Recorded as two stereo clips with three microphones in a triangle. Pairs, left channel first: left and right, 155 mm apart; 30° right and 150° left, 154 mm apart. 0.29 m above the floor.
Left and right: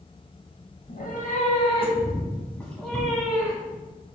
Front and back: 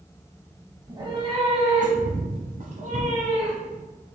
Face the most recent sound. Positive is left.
turn(degrees=-170)